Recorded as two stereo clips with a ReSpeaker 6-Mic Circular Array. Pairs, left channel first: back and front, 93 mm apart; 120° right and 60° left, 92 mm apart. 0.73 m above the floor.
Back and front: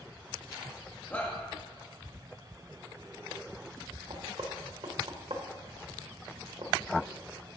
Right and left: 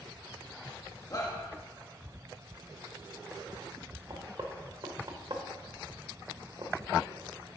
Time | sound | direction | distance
1.1 | a shout | 120° right | 1.1 m
4.1 | knocking | 20° left | 1.3 m